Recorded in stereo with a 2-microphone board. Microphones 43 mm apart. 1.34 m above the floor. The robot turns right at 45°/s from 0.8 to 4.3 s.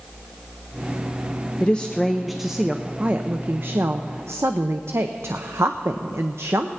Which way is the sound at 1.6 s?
150° left.